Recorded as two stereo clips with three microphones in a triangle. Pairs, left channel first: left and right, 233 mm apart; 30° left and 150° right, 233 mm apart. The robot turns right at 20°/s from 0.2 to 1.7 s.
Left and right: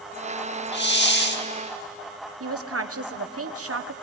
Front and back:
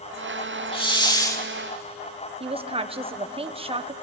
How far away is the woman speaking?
About 1.3 m.